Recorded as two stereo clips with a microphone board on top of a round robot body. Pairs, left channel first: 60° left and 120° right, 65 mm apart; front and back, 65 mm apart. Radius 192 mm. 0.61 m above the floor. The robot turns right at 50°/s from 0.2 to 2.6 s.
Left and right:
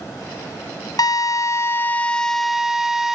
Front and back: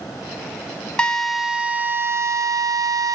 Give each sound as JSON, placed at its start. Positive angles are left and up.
{"t": 1.0, "sound": "a drill", "azimuth_deg": 75, "distance_m": 1.0}